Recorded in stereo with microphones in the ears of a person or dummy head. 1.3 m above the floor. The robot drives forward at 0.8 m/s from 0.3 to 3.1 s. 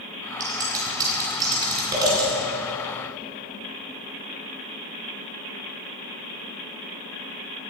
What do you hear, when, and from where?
0.4 s scissors: 20° right (ahead or behind), 9.5 m